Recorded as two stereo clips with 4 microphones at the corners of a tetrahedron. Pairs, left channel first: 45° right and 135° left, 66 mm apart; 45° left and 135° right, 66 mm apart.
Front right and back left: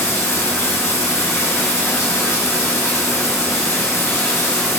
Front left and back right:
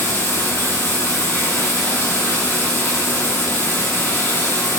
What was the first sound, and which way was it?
Running water, straight ahead.